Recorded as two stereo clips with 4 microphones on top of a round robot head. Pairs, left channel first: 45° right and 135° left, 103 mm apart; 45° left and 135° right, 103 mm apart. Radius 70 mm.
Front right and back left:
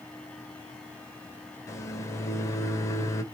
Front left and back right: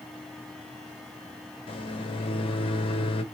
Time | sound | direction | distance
1.7 | a microwave | 15° left | 0.7 m